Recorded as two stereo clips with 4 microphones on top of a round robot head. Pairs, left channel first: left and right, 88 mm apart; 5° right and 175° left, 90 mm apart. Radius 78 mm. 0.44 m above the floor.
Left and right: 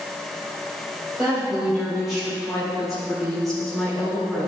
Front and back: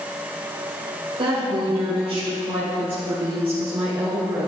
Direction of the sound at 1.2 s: 170° right.